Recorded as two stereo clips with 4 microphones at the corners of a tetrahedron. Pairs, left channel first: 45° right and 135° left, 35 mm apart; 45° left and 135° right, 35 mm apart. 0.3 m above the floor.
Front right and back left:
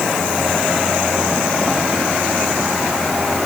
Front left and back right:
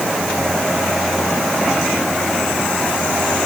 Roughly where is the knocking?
No knocking in this recording.